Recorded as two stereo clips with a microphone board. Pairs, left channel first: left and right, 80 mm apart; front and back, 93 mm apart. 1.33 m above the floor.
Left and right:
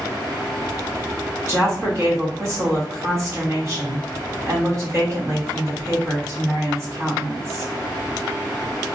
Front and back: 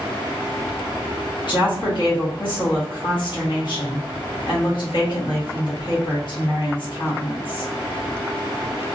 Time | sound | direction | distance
1.5 | a woman speaking | 35° right | 1.3 m